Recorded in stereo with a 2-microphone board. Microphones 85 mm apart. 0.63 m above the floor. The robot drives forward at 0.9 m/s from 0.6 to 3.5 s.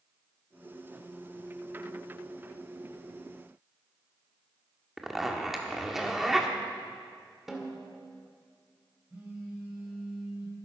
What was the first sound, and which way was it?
A zipper, 5° right (ahead or behind).